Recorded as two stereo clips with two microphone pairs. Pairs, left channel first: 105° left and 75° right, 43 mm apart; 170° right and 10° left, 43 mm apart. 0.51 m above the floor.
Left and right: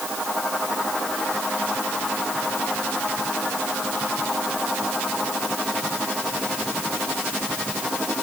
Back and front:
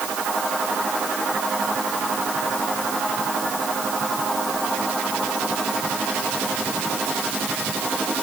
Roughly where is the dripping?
No dripping in this recording.